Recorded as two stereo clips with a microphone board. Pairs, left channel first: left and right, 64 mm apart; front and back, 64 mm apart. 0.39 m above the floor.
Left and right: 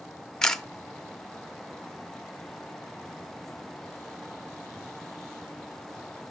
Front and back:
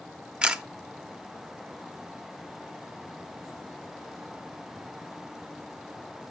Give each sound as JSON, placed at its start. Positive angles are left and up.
{"t": 0.4, "sound": "a camera shutter", "azimuth_deg": 150, "distance_m": 0.7}